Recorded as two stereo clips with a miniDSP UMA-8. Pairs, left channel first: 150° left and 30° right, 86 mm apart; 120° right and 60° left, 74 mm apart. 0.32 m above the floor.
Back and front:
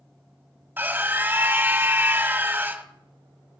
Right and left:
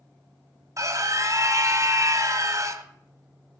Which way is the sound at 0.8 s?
30° left.